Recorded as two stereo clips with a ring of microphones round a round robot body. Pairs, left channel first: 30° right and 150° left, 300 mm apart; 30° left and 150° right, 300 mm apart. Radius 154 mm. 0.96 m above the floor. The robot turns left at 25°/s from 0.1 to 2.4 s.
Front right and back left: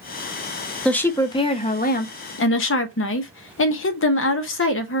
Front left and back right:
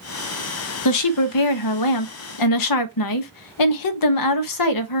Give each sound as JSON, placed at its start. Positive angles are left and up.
{"t": 0.8, "sound": "a woman speaking", "azimuth_deg": 60, "distance_m": 0.9}